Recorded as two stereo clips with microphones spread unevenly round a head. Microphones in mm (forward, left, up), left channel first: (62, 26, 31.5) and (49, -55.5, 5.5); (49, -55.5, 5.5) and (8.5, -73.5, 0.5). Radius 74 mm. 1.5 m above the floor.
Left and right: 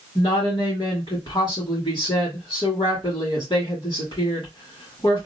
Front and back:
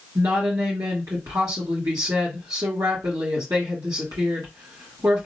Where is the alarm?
No alarm in this recording.